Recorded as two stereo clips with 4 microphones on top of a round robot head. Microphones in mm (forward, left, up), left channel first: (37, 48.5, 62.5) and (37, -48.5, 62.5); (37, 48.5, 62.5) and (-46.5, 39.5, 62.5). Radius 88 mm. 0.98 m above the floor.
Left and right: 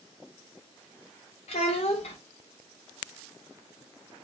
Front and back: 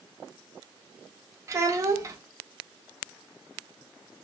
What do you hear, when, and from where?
1.5 s a child speaking: 130° left, 0.6 m